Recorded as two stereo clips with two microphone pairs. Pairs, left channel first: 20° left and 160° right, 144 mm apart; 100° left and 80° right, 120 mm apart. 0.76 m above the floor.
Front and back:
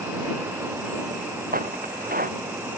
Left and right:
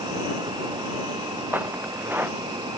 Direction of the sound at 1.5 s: 155° right.